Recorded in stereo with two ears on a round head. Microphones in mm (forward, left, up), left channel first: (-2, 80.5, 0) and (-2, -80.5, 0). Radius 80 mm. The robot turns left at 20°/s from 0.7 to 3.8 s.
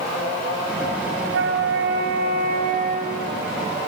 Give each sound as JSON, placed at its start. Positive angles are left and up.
{"t": 1.2, "sound": "a flute", "azimuth_deg": -100, "distance_m": 5.5}